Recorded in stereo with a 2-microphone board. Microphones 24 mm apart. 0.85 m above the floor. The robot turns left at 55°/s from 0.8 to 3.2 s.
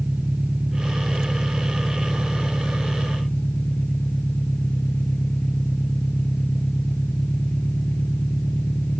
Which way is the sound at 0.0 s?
130° right.